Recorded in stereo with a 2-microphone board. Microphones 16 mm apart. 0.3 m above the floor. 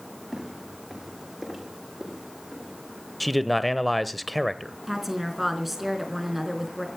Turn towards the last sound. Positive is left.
turn(degrees=-10)  # may be behind; listen again after turning